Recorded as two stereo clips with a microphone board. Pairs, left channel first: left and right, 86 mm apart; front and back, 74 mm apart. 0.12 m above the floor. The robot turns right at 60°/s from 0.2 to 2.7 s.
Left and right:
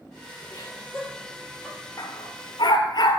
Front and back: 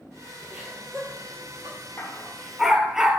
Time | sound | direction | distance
0.5 | laughter | 110° left | 3 m
2.0 | a dog barking | 60° left | 0.7 m